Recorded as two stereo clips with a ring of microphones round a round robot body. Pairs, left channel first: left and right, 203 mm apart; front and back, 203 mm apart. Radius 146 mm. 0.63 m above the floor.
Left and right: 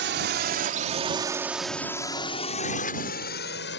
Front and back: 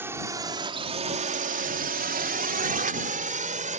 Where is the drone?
100° right; by 3.8 s 130° left.